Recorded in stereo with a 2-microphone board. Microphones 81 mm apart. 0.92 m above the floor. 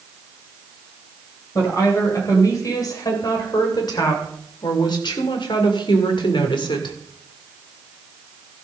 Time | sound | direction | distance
1.6 | a woman speaking | 40° left (ahead or behind) | 3.5 m